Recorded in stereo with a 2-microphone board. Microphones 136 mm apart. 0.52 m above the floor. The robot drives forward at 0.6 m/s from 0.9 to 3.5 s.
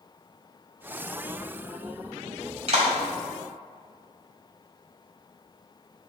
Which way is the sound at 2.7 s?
55° right (ahead or behind).